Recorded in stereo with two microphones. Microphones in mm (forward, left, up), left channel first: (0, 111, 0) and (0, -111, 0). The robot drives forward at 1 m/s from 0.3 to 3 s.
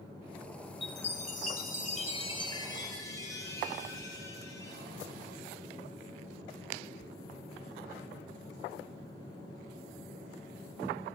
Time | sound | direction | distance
0.8 | a chime | 25° left (ahead or behind) | 1.0 m